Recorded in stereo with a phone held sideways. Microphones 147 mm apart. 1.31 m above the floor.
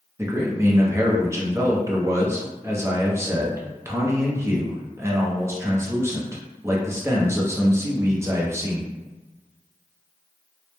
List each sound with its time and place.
0.2 s a man speaking: 20° right (ahead or behind), 0.5 m